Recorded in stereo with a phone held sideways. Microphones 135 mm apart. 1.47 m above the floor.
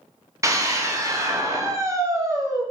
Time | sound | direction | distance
0.4 | a scream | 25° right (ahead or behind) | 0.8 m